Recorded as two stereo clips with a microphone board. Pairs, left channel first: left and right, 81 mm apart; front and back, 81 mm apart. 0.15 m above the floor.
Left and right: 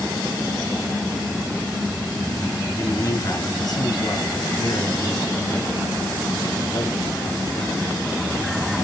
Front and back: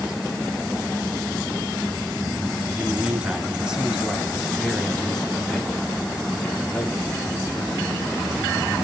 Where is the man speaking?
115° left, 2.5 m; by 7.9 s 65° left, 3.5 m.